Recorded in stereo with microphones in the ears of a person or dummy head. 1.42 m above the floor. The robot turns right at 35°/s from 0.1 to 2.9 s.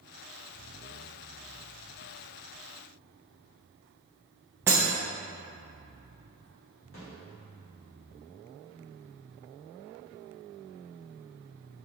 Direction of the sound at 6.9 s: 70° left (ahead or behind).